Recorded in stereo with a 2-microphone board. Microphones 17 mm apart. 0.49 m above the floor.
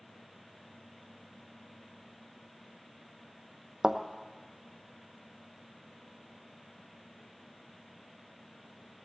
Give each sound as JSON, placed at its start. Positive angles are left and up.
{"t": 3.8, "sound": "a thud", "side_deg": -50, "distance_m": 1.0}